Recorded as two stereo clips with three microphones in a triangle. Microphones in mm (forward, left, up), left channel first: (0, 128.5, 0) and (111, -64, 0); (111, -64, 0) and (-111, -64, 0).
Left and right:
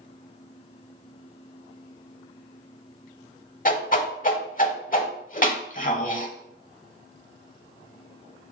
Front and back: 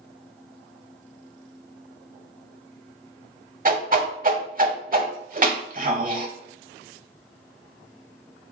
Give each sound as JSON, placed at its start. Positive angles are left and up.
{"t": 3.6, "sound": "a whoosh", "azimuth_deg": 150, "distance_m": 0.7}